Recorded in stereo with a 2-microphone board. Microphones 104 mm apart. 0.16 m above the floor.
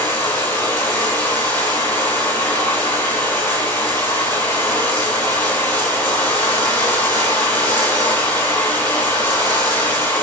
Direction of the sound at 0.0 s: 20° left (ahead or behind).